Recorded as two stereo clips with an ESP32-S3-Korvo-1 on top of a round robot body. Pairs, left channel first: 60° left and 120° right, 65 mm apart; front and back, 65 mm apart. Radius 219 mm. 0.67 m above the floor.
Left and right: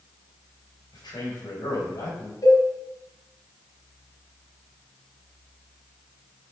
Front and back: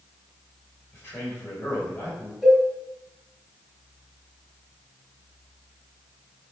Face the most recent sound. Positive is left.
turn(degrees=95)